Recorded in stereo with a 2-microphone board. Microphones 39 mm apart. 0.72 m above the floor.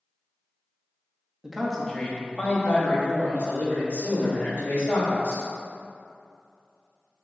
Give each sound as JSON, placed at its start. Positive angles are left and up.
{"t": 1.4, "sound": "a man speaking", "side_deg": -10, "distance_m": 0.6}